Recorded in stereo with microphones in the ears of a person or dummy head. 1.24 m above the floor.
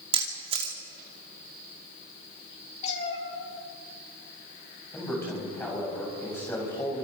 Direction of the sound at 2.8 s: 45° left (ahead or behind).